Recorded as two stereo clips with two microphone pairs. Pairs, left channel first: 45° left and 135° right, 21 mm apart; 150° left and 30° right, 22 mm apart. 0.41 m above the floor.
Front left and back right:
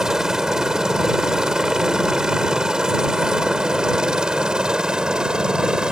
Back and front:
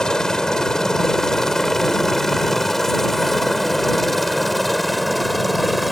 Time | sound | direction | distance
0.0 | a helicopter | straight behind | ?